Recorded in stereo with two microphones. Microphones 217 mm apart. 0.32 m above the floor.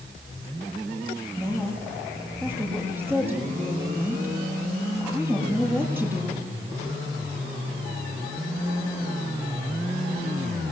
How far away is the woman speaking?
About 7.5 m.